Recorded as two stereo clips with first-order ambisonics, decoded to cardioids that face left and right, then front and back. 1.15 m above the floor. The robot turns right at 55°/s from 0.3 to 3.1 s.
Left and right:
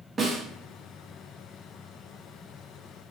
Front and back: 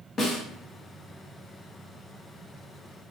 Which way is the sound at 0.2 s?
30° right.